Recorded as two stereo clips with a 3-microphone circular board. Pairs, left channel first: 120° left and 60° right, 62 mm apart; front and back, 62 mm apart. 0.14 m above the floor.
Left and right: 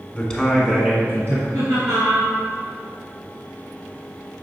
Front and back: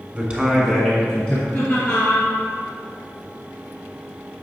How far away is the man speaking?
About 1.5 m.